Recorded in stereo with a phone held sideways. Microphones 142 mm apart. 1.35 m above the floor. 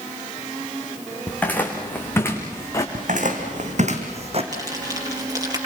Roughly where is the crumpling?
Right.